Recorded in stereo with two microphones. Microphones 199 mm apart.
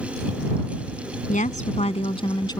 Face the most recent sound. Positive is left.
turn(degrees=20)  # may be behind; listen again after turning